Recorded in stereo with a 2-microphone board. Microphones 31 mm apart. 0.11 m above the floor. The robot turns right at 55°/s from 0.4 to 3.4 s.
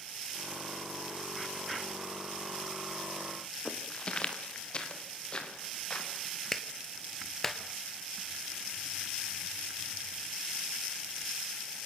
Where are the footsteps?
35° left (ahead or behind), 3 m.